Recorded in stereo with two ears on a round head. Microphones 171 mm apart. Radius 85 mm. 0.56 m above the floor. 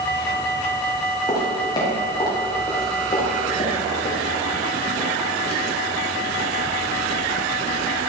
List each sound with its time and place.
1.3 s footsteps: 20° left (ahead or behind), 7 m; by 6.0 s 35° left (ahead or behind), 8.5 m